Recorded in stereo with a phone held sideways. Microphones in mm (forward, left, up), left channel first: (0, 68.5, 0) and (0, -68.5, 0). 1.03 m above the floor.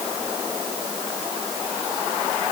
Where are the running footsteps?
I don't hear running footsteps.